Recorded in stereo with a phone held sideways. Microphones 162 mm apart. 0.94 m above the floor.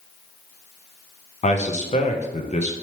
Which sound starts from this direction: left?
A man speaking, at 1.4 s.